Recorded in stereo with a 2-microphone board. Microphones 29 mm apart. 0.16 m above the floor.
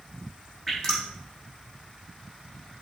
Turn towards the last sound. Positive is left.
turn(degrees=25)  # may be behind; listen again after turning